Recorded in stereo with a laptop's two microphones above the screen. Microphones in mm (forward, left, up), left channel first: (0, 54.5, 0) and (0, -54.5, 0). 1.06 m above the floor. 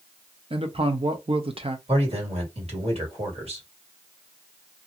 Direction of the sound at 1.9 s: 70° right (ahead or behind).